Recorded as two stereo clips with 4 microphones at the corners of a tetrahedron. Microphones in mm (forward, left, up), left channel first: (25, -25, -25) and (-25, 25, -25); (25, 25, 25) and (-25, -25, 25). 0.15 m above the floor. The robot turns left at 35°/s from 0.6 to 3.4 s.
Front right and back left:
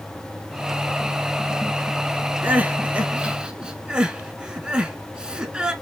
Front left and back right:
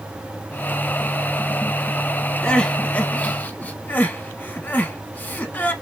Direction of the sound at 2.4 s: 110° left.